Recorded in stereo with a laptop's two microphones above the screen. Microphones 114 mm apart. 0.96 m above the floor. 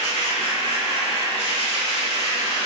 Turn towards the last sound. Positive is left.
turn(degrees=60)  # may be behind; listen again after turning